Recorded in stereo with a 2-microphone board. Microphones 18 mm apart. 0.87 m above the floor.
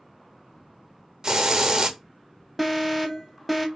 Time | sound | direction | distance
1.2 | a hiss | 35° right (ahead or behind) | 0.6 m
2.6 | an alarm | 5° right (ahead or behind) | 0.8 m